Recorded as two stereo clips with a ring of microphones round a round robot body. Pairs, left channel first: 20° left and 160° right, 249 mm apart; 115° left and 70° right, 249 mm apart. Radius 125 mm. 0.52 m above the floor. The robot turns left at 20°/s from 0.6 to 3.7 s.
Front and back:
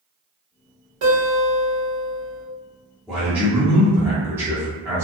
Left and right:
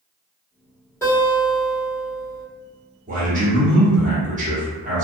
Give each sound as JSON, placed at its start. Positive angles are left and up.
{"t": 1.0, "sound": "a guitar", "azimuth_deg": -170, "distance_m": 1.3}
{"t": 3.1, "sound": "a man speaking", "azimuth_deg": -75, "distance_m": 0.9}